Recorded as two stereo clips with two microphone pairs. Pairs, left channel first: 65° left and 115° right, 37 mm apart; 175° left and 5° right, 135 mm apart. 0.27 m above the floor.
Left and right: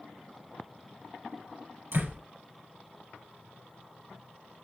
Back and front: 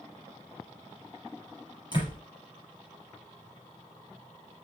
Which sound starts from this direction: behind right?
A door slam, at 1.9 s.